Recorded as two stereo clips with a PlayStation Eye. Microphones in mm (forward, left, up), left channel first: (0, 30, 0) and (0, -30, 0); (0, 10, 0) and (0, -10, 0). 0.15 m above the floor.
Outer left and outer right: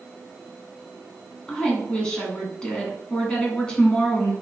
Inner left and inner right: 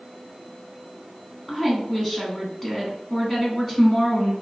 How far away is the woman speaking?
About 1.1 m.